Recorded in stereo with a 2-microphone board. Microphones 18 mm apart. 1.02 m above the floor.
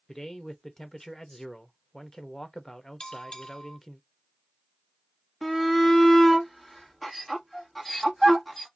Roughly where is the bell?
Left.